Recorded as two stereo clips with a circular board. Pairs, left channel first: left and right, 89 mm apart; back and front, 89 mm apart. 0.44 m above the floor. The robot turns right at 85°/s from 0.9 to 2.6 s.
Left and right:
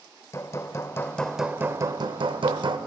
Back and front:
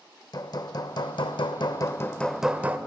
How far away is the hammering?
About 0.5 m.